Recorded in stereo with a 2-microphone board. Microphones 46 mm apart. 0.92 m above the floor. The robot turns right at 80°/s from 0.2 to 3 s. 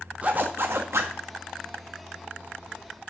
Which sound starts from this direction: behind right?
A zipper, at 0.2 s.